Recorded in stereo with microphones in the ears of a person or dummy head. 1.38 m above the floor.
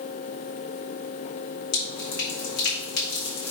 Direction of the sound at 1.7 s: 65° left (ahead or behind).